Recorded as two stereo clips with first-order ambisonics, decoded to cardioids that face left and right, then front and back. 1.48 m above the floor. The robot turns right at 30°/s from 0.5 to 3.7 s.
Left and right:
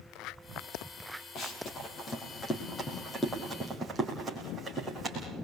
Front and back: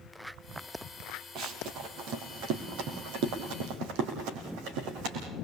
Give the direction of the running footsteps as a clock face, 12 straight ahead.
8 o'clock.